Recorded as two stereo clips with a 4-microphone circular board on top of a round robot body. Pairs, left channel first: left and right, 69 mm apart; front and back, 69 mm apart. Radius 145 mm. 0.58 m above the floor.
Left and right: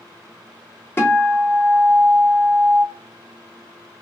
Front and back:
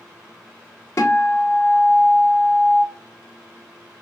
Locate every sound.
1.0 s a guitar: 40° left, 1.8 m